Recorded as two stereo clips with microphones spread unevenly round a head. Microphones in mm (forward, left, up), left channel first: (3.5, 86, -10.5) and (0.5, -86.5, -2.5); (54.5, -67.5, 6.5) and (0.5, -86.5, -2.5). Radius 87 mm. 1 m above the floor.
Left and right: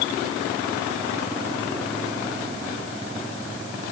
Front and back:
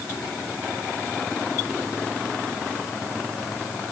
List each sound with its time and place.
Only background noise.